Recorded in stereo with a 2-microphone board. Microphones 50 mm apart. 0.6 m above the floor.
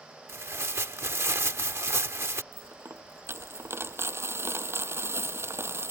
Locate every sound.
0.3 s tearing paper: 60° right (ahead or behind)
2.5 s a dropped coin: 60° right (ahead or behind)